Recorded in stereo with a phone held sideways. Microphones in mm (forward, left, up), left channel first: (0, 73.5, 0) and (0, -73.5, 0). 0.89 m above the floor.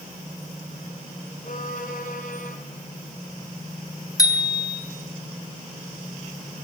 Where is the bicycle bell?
25° left (ahead or behind), 3.5 m.